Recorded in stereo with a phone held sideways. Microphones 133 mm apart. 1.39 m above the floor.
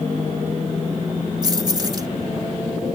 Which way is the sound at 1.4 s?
30° right (ahead or behind).